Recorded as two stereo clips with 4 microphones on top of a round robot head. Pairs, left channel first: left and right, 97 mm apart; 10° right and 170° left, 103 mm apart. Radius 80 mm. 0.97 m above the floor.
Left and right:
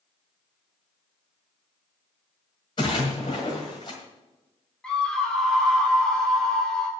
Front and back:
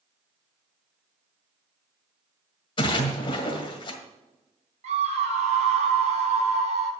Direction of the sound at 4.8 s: 170° left.